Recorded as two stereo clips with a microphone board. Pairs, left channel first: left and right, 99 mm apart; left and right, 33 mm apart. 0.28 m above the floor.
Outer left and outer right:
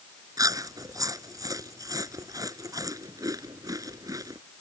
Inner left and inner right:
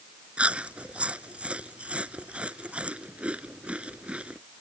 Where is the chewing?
35° right (ahead or behind).